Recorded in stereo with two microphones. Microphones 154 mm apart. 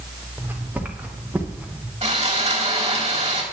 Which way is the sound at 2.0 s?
40° right (ahead or behind).